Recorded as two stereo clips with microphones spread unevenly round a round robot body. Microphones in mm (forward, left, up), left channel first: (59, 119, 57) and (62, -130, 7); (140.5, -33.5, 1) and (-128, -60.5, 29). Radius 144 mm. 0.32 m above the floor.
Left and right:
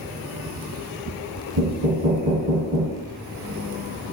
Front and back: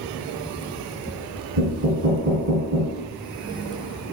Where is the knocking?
135° right, 1.6 m.